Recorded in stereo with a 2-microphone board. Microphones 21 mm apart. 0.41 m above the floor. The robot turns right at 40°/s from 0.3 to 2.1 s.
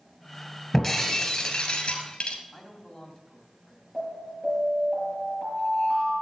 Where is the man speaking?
15° left (ahead or behind), 2.5 m.